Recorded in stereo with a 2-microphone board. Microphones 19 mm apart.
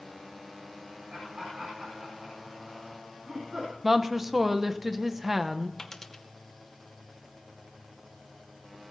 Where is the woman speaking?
20° right (ahead or behind), 0.8 m.